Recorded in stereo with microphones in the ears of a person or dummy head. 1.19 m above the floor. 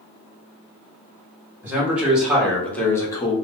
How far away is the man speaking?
About 1.6 m.